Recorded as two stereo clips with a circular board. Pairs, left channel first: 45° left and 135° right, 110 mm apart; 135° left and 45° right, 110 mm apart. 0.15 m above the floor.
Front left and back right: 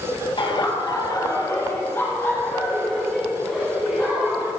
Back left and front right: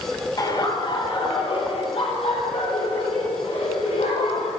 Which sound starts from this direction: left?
Laughter, at 0.4 s.